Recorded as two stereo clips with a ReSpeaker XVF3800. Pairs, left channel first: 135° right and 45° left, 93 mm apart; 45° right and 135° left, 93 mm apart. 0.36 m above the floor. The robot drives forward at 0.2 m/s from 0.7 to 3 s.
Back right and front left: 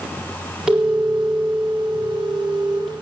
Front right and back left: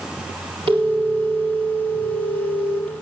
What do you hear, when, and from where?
0.7 s a phone ringing: 130° left, 4.5 m; by 3.0 s 135° left, 5 m